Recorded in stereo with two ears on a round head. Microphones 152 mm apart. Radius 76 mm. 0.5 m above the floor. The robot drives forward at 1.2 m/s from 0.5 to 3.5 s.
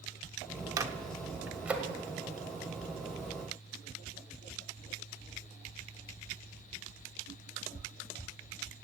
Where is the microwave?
20° right (ahead or behind), 0.6 m; by 1.9 s 5° right (ahead or behind), 1.8 m.